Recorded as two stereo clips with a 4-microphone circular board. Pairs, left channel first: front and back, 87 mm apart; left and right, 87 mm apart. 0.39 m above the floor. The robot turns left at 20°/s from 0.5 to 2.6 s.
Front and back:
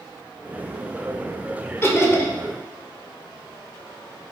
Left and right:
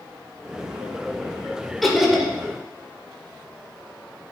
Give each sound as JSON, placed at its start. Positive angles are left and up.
{"t": 1.8, "sound": "laughter", "azimuth_deg": 0, "distance_m": 1.6}